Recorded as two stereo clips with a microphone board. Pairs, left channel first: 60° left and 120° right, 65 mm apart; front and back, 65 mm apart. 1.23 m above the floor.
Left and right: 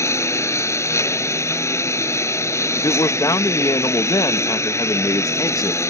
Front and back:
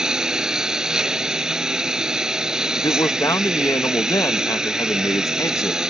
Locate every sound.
0.0 s a lawn mower: 100° left
2.8 s a man speaking: 35° left